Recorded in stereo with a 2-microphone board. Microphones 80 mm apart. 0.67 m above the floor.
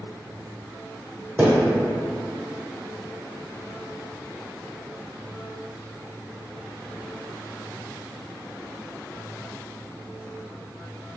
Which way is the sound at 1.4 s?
30° right (ahead or behind).